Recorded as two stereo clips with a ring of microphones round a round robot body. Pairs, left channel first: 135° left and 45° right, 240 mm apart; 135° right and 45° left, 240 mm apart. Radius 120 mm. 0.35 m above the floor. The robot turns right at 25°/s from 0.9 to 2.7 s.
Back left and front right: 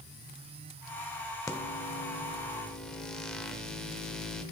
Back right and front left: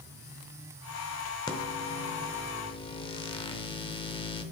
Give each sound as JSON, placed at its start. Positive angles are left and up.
{"t": 1.5, "sound": "a microwave", "azimuth_deg": -175, "distance_m": 0.7}